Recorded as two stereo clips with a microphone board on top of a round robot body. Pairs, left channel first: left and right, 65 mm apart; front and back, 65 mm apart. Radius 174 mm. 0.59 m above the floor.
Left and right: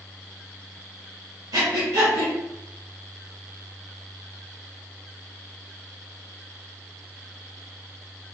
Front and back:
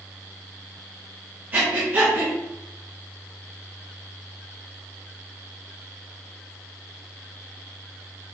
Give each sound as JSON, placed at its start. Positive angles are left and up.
{"t": 1.5, "sound": "breathing", "azimuth_deg": -120, "distance_m": 0.5}